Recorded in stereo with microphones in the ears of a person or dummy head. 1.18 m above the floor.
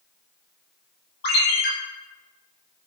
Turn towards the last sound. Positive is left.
turn(degrees=60)  # may be behind; listen again after turning